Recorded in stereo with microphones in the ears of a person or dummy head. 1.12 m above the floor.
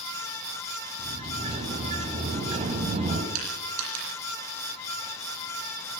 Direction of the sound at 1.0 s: 35° right (ahead or behind).